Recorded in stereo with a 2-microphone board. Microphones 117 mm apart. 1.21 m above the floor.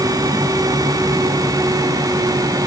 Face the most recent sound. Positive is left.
No sound to turn to.